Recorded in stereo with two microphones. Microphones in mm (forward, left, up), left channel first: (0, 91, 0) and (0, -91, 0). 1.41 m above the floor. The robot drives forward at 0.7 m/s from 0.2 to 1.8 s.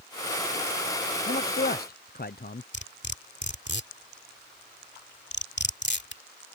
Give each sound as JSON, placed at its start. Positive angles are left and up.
{"t": 1.3, "sound": "a man speaking", "side_deg": 55}
{"t": 2.7, "sound": "cutlery clinking", "side_deg": 70}